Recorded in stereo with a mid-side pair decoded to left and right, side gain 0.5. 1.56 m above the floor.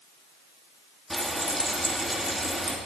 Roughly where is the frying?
Ahead.